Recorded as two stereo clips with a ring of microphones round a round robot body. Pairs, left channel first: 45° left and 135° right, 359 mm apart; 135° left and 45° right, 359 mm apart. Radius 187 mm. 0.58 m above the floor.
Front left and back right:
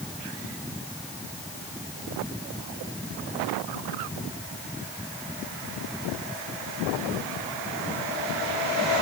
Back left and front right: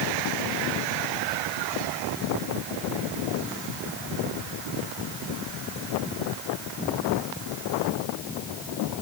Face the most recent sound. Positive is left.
No sound to turn to.